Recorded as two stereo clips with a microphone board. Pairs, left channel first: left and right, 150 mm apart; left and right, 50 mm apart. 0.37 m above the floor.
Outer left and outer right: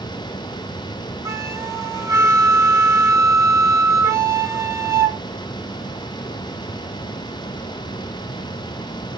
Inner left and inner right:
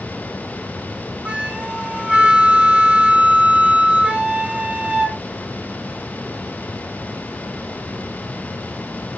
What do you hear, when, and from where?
1.2 s a flute: 20° right (ahead or behind), 0.7 m